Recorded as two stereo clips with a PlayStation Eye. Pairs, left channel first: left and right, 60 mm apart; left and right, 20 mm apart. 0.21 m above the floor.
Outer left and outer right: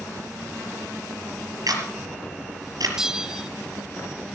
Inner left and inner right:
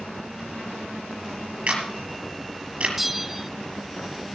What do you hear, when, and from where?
1.7 s a camera shutter: 75° right (ahead or behind), 5.5 m
3.0 s a bell: 10° right (ahead or behind), 0.5 m